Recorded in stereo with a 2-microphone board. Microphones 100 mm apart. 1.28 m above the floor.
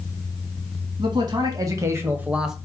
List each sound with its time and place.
1.0 s a man speaking: 45° right (ahead or behind), 1.2 m; by 2.5 s 5° right (ahead or behind), 0.7 m